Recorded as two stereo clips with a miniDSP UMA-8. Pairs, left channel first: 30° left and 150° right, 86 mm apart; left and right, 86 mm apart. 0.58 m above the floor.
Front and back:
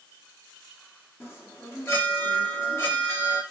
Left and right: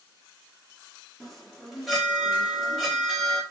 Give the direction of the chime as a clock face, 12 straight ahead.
12 o'clock.